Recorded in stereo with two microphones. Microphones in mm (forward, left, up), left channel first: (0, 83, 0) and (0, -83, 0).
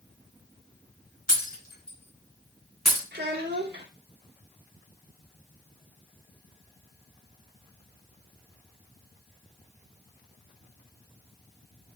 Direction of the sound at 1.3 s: 60° left (ahead or behind).